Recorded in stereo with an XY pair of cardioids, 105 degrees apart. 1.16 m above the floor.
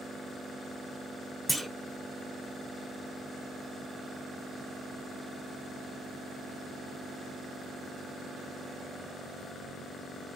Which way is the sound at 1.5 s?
Straight ahead.